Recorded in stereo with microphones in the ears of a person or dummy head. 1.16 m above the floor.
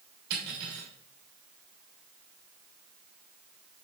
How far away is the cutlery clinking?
About 3 m.